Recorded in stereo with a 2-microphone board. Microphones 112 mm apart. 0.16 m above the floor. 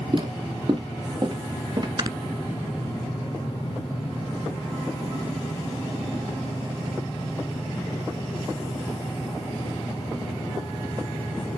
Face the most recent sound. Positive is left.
turn(degrees=-40)  # may be behind; listen again after turning